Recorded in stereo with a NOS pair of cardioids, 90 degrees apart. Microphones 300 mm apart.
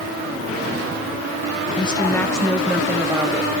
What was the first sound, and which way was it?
A woman speaking, 20° left.